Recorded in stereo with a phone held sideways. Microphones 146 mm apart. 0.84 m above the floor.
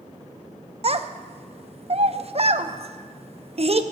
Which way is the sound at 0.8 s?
45° right (ahead or behind).